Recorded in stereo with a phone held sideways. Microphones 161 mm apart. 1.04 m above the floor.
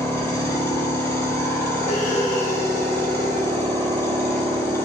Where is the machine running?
15° left (ahead or behind), 0.9 m.